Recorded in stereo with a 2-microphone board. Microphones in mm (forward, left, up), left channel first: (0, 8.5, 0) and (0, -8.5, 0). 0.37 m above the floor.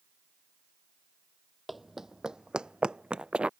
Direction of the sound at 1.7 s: 5° right (ahead or behind).